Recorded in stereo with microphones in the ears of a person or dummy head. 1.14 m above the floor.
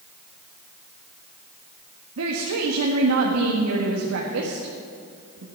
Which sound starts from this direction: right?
A woman speaking, at 2.2 s.